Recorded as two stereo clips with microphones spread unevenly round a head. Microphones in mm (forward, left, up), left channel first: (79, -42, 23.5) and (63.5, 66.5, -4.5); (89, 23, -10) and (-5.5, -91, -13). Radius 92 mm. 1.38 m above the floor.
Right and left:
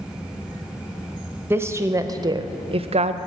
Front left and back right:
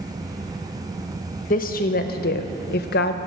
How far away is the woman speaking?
About 1.1 m.